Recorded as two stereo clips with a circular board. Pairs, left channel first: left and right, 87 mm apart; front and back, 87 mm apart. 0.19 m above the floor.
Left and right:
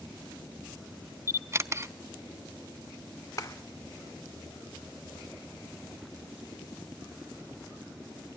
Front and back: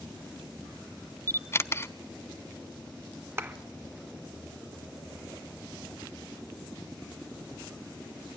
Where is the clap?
125° left, 1.4 m.